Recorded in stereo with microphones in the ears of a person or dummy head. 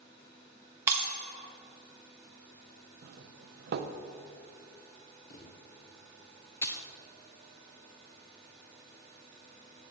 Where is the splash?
20° left (ahead or behind), 0.7 m.